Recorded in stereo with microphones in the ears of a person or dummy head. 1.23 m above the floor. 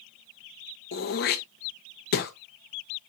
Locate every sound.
0.9 s throat clearing: 55° left (ahead or behind), 0.9 m